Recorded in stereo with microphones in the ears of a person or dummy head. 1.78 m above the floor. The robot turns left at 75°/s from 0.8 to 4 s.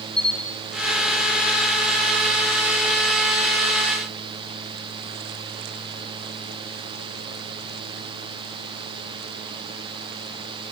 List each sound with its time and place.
0.2 s a camera shutter: 10° left (ahead or behind), 3 m